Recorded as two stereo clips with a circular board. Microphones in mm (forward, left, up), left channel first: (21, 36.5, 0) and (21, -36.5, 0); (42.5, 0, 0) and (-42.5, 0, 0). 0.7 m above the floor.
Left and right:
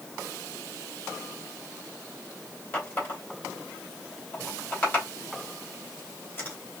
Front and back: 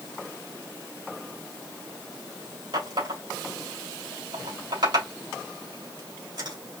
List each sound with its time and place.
2.7 s a running tap: 155° left, 3 m